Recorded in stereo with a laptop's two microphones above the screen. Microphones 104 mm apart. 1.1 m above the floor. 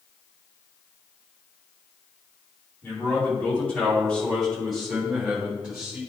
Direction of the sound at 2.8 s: 20° left (ahead or behind).